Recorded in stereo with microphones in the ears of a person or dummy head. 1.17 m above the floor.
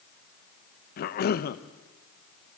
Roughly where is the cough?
Left.